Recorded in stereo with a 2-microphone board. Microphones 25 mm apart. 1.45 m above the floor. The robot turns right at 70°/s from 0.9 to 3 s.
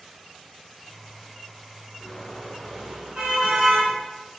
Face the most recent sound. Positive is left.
turn(degrees=-140)